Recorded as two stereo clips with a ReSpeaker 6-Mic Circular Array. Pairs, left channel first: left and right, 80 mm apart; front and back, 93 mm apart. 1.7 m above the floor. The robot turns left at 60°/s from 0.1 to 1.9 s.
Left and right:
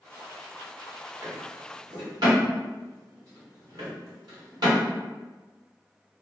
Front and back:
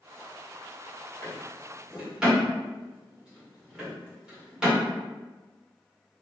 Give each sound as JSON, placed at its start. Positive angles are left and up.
{"t": 1.2, "sound": "a drawer", "azimuth_deg": -55, "distance_m": 1.4}